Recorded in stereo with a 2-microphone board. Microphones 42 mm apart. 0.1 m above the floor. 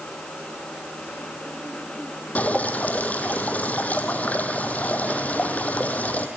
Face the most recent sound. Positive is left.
turn(degrees=40)  # may be behind; listen again after turning